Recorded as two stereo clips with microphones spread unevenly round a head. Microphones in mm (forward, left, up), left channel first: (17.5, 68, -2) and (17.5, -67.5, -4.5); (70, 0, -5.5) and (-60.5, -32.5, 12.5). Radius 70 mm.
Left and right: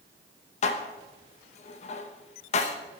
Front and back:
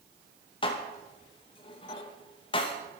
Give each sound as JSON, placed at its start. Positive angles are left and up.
{"t": 0.6, "sound": "dishes clattering", "azimuth_deg": 70, "distance_m": 0.9}